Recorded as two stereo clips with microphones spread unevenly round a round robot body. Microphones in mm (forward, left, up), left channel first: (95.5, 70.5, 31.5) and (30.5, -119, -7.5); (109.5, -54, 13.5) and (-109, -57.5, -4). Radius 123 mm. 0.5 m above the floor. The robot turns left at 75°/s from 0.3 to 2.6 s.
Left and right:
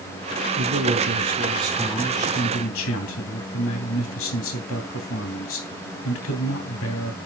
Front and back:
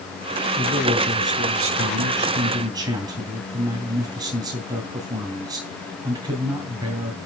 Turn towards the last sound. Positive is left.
turn(degrees=105)